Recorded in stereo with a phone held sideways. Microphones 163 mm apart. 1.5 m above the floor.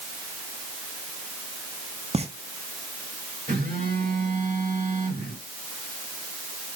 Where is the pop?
40° right (ahead or behind), 1.3 m.